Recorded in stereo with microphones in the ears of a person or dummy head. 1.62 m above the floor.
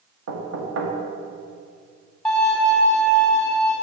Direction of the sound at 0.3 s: 75° right (ahead or behind).